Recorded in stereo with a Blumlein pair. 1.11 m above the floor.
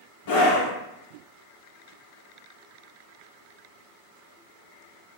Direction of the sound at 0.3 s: 50° left.